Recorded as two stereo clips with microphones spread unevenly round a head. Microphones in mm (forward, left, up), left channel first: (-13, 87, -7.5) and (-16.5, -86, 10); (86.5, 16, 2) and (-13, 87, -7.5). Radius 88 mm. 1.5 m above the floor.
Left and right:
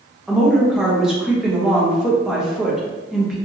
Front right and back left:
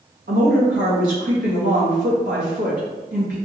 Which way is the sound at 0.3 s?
Straight behind.